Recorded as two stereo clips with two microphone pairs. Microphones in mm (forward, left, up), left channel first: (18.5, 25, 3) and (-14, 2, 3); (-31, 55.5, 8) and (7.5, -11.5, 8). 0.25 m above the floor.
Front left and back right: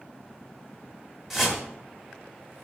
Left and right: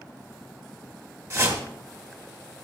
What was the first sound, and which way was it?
A whoosh, 70° right.